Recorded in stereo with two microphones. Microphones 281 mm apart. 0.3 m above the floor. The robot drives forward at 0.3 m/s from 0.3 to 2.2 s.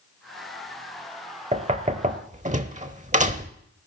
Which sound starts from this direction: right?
Knocking, at 1.5 s.